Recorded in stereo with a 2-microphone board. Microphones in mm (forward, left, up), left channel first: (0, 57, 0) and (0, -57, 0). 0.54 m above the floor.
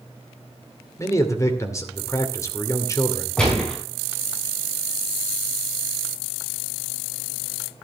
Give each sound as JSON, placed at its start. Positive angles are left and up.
{"t": 1.0, "sound": "a man speaking", "side_deg": 25, "distance_m": 2.0}
{"t": 3.4, "sound": "a gunshot", "side_deg": 5, "distance_m": 5.5}